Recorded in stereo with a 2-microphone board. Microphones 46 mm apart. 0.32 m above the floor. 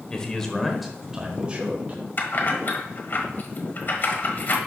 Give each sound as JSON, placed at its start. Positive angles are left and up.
{"t": 0.1, "sound": "a man speaking", "side_deg": 20, "distance_m": 1.1}
{"t": 2.2, "sound": "keys jangling", "side_deg": 45, "distance_m": 1.2}